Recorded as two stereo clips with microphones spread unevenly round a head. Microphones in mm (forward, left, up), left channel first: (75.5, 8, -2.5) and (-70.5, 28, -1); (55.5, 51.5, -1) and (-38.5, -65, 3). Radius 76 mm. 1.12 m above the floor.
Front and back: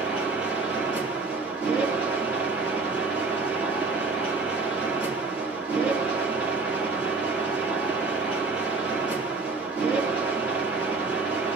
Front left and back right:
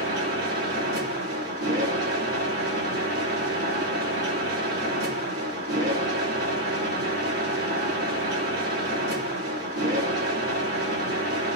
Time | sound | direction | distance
0.0 | a machine running | 105° right | 2.5 m